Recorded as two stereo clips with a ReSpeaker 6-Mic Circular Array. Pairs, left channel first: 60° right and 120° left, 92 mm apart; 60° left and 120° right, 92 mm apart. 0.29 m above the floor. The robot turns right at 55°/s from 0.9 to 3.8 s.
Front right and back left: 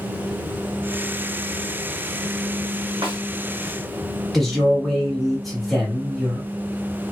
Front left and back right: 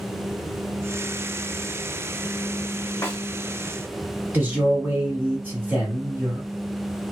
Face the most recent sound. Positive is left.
turn(degrees=-145)